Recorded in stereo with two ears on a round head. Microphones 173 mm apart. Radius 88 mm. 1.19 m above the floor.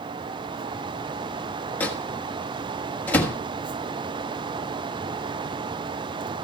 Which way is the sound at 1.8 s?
10° left (ahead or behind).